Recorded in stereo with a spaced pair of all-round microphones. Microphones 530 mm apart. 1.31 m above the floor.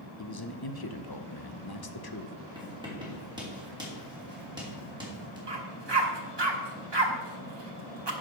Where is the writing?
10° right (ahead or behind), 3 m.